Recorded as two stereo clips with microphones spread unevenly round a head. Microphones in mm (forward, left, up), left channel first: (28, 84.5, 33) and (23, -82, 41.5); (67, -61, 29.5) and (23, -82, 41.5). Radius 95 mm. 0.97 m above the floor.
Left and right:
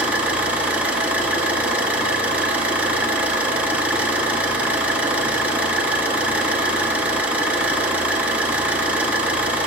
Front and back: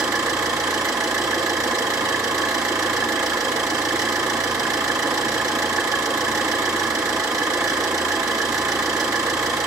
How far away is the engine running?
About 0.9 m.